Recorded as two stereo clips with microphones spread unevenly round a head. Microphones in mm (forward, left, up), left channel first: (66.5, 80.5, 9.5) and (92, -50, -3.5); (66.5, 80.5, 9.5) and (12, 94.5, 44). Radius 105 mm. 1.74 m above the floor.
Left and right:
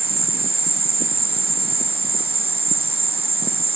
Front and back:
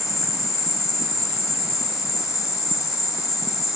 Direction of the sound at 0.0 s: 30° right.